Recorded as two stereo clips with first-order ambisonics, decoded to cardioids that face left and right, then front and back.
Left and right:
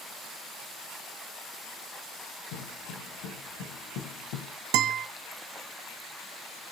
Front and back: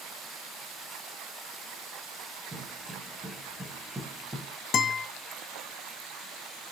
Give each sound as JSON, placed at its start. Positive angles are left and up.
{"t": 2.5, "sound": "footsteps", "azimuth_deg": 105, "distance_m": 6.5}
{"t": 4.7, "sound": "a guitar", "azimuth_deg": -65, "distance_m": 1.5}